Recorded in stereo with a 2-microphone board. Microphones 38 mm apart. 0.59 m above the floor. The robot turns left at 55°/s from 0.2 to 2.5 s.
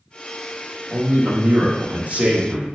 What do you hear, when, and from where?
0.9 s a man speaking: 55° right, 0.9 m; by 2.6 s 140° right, 0.9 m